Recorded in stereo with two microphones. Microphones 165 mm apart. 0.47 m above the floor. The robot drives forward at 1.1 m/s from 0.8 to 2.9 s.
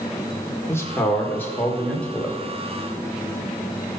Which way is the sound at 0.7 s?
15° left (ahead or behind).